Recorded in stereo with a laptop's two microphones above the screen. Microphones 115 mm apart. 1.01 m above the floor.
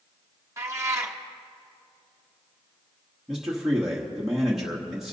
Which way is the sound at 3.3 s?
5° right (ahead or behind).